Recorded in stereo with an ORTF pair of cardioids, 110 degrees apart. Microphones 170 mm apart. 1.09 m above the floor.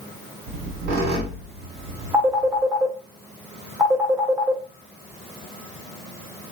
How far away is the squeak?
About 1.4 m.